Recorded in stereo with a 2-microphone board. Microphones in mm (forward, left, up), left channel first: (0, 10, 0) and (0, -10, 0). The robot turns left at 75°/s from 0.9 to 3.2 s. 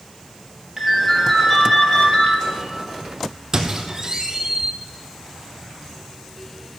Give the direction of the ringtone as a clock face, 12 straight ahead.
5 o'clock.